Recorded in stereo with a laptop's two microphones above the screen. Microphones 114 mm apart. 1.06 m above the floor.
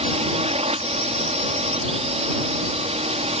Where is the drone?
60° right (ahead or behind).